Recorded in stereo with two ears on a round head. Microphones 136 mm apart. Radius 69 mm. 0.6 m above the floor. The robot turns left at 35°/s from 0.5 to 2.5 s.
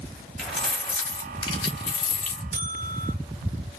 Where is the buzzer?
45° right (ahead or behind), 0.5 m.